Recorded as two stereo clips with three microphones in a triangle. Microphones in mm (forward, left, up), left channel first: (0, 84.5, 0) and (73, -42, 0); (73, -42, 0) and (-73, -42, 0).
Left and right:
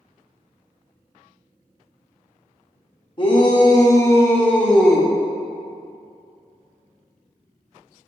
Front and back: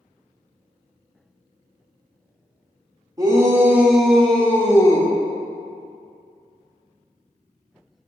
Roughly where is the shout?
Behind left.